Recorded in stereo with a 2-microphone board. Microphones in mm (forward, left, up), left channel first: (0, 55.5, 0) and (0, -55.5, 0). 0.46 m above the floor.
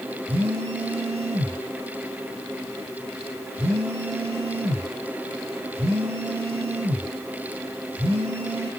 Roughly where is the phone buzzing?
Right.